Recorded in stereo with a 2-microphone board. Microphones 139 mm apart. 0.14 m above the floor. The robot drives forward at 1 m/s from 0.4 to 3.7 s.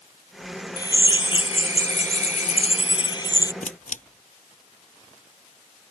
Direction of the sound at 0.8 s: 30° left (ahead or behind).